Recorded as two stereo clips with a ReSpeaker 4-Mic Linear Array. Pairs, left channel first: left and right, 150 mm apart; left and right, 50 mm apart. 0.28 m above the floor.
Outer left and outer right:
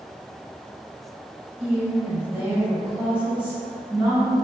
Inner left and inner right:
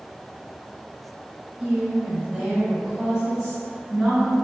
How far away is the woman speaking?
About 1.4 m.